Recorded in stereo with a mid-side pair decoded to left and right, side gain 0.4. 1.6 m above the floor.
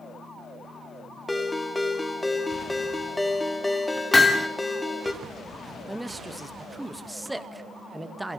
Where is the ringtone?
15° left, 2.5 m.